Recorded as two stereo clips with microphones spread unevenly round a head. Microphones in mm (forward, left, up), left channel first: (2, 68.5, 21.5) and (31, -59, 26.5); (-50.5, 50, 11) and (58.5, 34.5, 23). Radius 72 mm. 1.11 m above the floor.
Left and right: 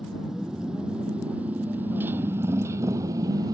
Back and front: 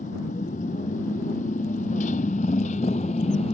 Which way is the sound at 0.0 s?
165° right.